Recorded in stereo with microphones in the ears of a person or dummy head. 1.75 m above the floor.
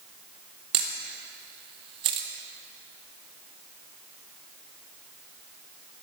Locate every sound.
0.7 s a camera shutter: 25° right (ahead or behind), 1.0 m